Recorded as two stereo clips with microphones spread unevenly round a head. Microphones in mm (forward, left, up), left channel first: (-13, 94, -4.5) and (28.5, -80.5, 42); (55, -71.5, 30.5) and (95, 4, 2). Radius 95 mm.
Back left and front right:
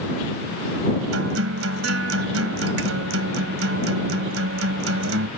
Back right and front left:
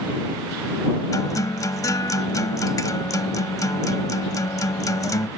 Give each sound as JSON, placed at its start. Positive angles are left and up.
{"t": 1.1, "sound": "a guitar", "azimuth_deg": -75}